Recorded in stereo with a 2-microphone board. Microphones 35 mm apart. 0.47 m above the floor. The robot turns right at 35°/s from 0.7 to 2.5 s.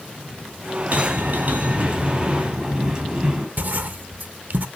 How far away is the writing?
About 0.6 m.